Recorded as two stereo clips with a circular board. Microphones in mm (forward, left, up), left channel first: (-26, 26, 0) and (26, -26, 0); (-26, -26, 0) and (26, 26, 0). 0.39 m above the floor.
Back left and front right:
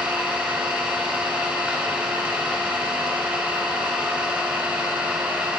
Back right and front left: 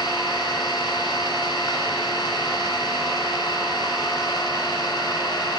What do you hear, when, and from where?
0.0 s an engine running: 115° right, 1.1 m